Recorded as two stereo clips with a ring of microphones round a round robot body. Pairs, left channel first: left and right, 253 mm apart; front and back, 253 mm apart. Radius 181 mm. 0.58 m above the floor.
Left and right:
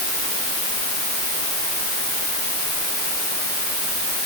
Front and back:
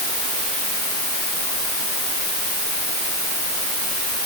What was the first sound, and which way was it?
Only background noise.